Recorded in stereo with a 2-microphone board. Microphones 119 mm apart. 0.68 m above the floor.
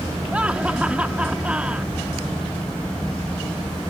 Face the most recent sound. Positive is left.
turn(degrees=-10)  # may be behind; listen again after turning